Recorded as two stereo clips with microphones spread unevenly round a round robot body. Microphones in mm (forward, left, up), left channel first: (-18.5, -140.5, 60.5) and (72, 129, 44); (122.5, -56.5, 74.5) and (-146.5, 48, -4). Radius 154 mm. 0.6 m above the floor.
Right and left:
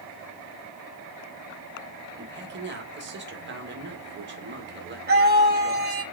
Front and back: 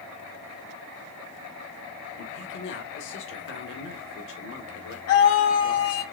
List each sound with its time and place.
2.2 s a man speaking: 30° left, 2.0 m
5.1 s a scream: 20° left, 4 m